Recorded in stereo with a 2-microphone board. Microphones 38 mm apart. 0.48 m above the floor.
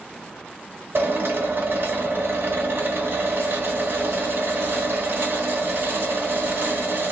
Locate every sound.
0.9 s a drill: 60° right (ahead or behind), 1.5 m